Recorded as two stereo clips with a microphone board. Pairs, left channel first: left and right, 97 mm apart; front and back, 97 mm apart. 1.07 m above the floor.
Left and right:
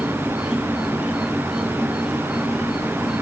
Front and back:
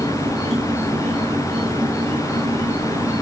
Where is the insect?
170° right, 2 m.